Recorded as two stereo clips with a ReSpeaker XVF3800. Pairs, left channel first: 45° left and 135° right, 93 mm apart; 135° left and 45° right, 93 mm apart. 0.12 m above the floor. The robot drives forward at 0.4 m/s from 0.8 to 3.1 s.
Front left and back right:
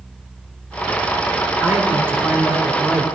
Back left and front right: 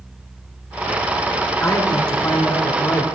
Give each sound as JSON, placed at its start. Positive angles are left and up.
{"t": 1.6, "sound": "a man speaking", "azimuth_deg": 165, "distance_m": 2.5}